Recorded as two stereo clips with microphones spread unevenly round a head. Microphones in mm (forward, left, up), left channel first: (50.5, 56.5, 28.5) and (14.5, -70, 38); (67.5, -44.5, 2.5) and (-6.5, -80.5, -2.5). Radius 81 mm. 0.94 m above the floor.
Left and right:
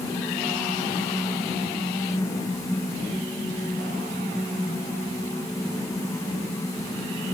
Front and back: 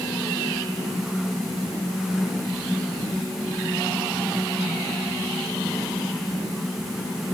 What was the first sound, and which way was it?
Only background noise.